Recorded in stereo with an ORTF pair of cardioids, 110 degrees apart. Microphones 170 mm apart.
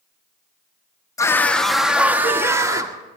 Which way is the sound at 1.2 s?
15° left.